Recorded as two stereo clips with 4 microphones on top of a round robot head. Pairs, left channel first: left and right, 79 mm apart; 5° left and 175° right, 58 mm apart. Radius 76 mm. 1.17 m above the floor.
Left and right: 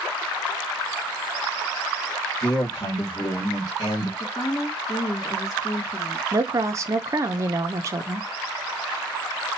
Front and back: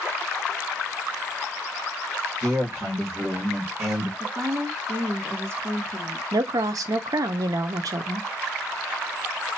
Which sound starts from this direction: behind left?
A woman speaking, at 4.2 s.